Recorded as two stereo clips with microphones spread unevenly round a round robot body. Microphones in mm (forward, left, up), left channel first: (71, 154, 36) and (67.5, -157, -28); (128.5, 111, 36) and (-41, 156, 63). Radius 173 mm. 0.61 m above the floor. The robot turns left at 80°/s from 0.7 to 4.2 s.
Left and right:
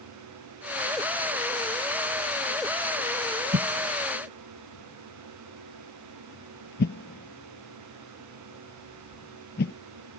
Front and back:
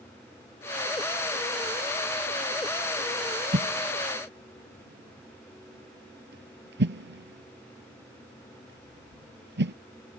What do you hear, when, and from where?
3.5 s a whoosh: 155° right; by 9.7 s 155° left